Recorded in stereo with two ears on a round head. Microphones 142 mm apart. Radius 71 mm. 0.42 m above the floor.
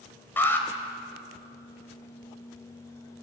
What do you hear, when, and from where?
0.4 s an alarm: 15° left (ahead or behind), 2.5 m